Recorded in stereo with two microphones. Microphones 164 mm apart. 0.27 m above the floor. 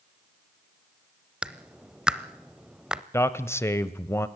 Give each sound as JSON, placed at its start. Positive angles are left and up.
{"t": 1.4, "sound": "a clap", "side_deg": -5, "distance_m": 0.7}
{"t": 3.1, "sound": "a man speaking", "side_deg": 15, "distance_m": 1.0}